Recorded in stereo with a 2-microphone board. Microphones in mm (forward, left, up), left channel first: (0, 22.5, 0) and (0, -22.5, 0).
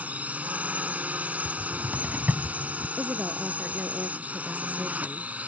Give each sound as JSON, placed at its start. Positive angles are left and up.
{"t": 0.0, "sound": "a drone", "side_deg": -35}
{"t": 1.4, "sound": "a cupboard door", "side_deg": -45}
{"t": 3.0, "sound": "a woman speaking", "side_deg": -40}